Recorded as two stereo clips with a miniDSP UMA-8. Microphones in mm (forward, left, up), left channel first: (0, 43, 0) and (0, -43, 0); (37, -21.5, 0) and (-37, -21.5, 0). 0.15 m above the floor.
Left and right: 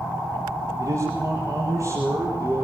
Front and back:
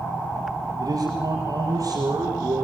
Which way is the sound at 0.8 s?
140° right.